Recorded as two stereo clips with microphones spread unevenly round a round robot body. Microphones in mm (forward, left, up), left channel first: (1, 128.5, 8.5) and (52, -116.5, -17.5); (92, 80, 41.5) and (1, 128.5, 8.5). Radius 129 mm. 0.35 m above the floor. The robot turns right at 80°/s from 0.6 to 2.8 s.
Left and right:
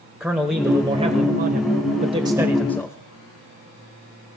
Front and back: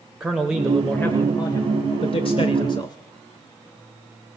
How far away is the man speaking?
About 1.2 m.